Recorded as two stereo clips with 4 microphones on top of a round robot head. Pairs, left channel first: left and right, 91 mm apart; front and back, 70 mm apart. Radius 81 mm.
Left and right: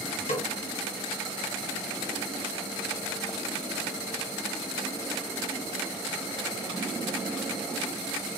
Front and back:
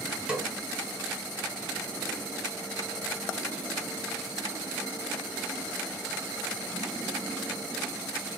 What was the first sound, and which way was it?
A snare drum, 100° left.